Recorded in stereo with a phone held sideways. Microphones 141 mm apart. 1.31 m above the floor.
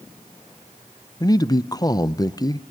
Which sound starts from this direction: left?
A man speaking, at 1.2 s.